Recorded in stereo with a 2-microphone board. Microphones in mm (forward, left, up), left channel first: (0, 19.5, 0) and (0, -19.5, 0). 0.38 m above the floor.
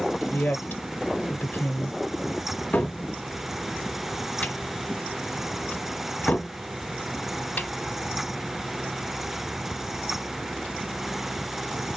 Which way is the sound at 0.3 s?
40° left (ahead or behind).